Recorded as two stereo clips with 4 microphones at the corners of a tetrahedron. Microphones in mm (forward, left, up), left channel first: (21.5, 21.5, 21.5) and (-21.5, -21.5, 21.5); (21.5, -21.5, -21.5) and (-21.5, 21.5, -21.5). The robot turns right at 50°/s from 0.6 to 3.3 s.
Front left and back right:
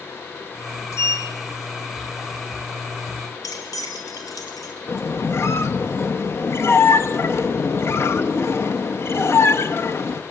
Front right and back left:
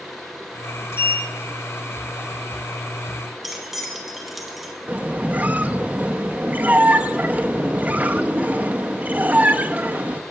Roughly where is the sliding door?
Ahead.